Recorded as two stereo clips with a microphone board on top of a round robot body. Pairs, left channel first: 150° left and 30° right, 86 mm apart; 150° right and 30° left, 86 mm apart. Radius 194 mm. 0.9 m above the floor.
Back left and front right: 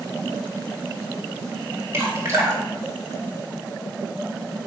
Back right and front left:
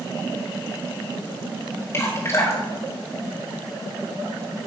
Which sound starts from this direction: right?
Dripping, at 1.9 s.